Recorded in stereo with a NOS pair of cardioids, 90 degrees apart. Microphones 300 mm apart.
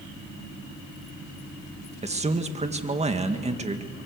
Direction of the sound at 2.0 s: 20° right.